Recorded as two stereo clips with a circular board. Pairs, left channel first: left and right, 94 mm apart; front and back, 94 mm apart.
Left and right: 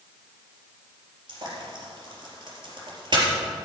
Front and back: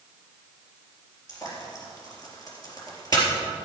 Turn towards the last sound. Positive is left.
turn(degrees=-50)